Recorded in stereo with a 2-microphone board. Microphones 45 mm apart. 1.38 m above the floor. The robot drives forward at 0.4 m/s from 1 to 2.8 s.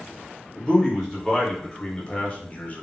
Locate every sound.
0.6 s a man speaking: 15° left (ahead or behind), 1.2 m; by 2.8 s 35° left (ahead or behind), 0.6 m